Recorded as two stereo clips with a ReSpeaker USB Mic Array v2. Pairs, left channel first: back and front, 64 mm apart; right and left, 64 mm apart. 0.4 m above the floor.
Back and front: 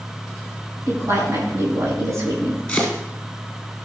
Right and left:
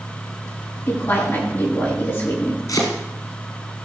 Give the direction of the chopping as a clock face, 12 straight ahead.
3 o'clock.